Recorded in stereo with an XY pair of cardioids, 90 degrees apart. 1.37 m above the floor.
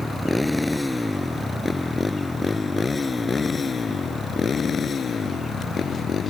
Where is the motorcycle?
5° left; by 6.3 s 55° left.